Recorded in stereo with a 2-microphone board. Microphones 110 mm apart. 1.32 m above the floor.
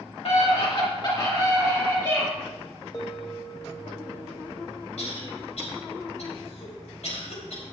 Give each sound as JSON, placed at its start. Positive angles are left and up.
{"t": 0.2, "sound": "a scream", "side_deg": 60, "distance_m": 2.0}
{"t": 2.9, "sound": "a bell", "side_deg": 30, "distance_m": 1.2}
{"t": 5.0, "sound": "a cough", "side_deg": 75, "distance_m": 4.0}